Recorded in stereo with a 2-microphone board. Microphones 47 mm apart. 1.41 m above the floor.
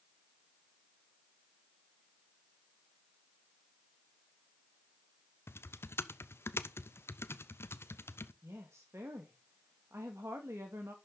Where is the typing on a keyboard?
60° left (ahead or behind), 0.7 m.